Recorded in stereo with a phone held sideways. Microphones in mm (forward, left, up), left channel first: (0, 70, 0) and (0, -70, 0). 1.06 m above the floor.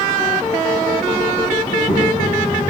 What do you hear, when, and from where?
1.6 s a child speaking: 35° left (ahead or behind), 4 m